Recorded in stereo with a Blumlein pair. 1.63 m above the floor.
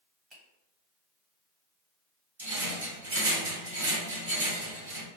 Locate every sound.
0.3 s a finger snap: 25° right, 1.6 m
2.4 s a rattle: 60° right, 1.8 m